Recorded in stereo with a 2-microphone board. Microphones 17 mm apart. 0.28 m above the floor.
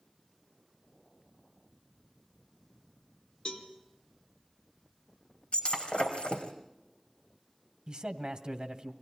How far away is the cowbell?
About 3 m.